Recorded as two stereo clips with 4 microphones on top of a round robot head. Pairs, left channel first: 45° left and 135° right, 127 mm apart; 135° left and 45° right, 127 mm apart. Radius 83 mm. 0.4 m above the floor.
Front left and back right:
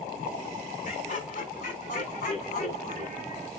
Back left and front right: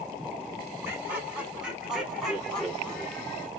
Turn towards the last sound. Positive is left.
turn(degrees=60)